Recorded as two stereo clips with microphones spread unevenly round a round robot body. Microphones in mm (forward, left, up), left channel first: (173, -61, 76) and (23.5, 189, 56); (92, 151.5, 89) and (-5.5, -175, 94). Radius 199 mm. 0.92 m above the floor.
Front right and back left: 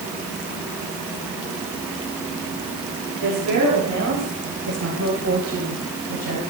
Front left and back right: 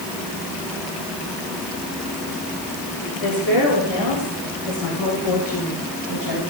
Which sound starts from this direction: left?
A woman speaking, at 3.2 s.